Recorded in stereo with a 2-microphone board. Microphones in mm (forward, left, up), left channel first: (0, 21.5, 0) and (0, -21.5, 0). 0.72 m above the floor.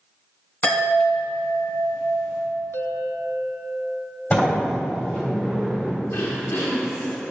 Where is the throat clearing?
70° left (ahead or behind), 2.0 m.